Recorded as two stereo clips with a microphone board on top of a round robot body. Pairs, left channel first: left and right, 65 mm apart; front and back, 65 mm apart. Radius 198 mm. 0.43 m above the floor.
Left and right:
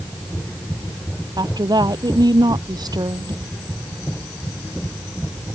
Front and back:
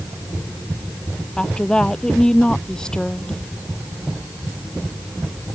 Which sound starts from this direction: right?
A woman speaking, at 1.4 s.